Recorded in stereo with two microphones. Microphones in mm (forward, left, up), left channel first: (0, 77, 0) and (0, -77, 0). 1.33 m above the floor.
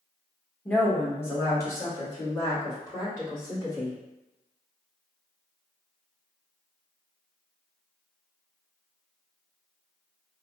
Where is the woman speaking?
5° left (ahead or behind), 1.1 m; by 4.0 s 30° left (ahead or behind), 3 m.